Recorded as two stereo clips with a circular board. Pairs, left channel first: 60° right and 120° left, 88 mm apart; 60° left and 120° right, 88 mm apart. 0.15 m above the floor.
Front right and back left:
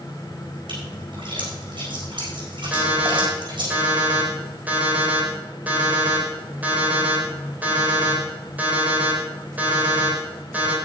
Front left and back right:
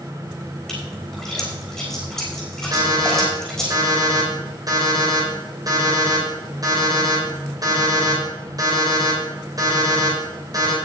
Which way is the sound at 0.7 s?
140° left.